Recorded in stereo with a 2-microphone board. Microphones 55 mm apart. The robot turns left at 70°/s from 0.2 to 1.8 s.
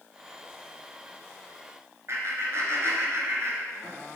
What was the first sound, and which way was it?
Laughter, 55° right (ahead or behind).